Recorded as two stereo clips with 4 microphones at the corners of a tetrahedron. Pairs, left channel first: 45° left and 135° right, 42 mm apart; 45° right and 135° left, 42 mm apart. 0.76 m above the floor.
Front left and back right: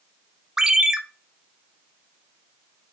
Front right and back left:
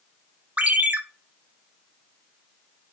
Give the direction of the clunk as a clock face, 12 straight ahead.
No clunk in this recording.